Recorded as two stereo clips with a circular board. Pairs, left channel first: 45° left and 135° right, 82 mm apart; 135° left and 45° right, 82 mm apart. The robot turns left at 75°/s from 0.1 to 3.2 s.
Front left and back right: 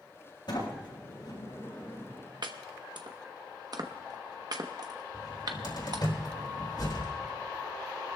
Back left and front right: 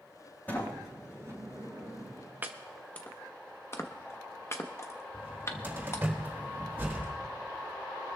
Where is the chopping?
110° right, 1.0 m; by 6.1 s 170° right, 1.0 m.